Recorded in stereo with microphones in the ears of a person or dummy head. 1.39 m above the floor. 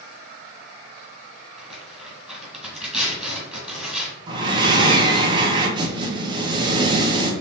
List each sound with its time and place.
1.6 s tearing paper: 10° right (ahead or behind), 2.5 m
4.3 s breathing: 30° right (ahead or behind), 0.9 m